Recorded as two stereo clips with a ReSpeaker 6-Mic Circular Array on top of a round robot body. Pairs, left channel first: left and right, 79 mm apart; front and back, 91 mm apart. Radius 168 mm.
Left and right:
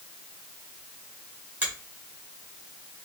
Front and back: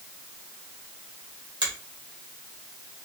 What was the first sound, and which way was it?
A finger snap, 155° right.